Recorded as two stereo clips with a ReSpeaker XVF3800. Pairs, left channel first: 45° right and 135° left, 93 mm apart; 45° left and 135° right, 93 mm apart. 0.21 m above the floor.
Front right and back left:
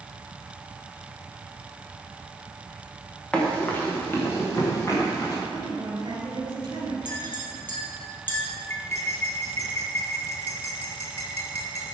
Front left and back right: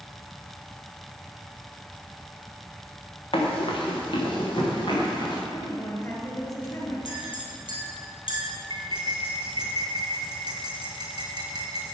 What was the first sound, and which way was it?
Running footsteps, 35° left.